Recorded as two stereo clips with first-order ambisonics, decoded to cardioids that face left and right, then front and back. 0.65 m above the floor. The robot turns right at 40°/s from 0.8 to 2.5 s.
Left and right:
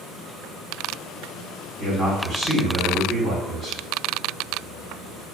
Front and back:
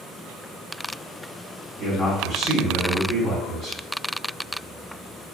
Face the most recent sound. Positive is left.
turn(degrees=-85)